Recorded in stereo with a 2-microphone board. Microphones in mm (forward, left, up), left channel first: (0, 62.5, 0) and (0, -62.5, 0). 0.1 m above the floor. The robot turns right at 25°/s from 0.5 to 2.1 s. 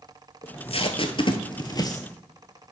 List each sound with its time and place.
0.4 s tape being pulled: 55° left (ahead or behind), 0.8 m; by 2.0 s 25° left (ahead or behind), 0.8 m